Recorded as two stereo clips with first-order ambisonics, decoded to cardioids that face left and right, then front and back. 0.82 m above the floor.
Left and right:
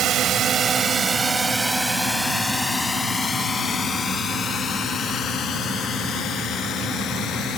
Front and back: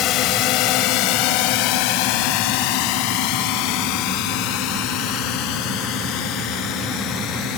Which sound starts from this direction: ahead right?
A drone, at 0.0 s.